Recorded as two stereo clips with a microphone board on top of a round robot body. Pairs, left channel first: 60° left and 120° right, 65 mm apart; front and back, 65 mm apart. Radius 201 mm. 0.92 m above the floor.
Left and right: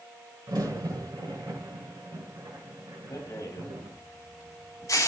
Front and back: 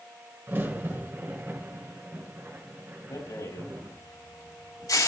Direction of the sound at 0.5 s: 120° right.